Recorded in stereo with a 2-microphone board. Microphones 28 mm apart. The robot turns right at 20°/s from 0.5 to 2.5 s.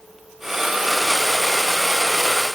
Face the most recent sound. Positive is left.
No sound to turn to.